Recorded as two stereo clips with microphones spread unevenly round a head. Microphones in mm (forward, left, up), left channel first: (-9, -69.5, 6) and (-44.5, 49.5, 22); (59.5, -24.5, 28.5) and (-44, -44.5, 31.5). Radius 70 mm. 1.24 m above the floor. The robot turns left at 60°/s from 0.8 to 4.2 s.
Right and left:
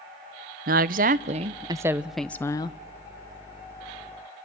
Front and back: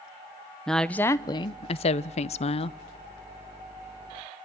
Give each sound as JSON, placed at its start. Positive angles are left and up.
{"t": 0.7, "sound": "a woman speaking", "azimuth_deg": 95, "distance_m": 0.5}